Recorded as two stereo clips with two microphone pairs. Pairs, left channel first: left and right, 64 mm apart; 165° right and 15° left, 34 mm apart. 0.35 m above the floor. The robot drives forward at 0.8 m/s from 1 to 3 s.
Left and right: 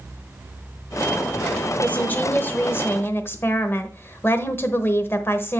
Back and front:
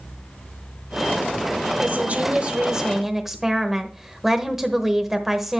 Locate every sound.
1.8 s a woman speaking: 35° left, 1.4 m; by 5.6 s 90° left, 1.1 m